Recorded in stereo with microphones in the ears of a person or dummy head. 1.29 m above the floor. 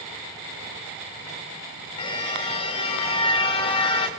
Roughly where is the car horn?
Left.